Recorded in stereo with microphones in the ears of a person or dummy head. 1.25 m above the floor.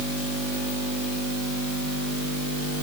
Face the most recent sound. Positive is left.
No sound to turn to.